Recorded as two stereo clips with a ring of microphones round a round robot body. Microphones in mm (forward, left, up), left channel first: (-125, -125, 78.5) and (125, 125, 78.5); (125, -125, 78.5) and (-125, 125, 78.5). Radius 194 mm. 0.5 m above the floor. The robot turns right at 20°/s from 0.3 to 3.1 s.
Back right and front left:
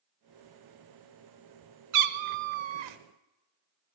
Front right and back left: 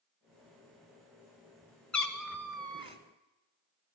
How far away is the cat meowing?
About 0.8 m.